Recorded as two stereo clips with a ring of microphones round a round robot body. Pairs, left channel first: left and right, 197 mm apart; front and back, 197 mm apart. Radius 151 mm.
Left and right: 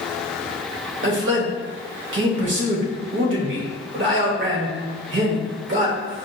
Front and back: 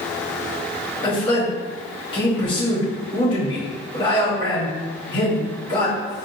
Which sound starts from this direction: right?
A man speaking, at 1.0 s.